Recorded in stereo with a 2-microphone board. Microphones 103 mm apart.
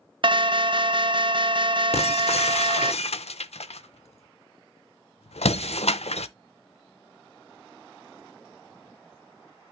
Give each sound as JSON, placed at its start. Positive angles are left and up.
{"t": 0.2, "sound": "an alarm", "side_deg": -50, "distance_m": 0.6}
{"t": 1.9, "sound": "breaking glass", "side_deg": 85, "distance_m": 0.5}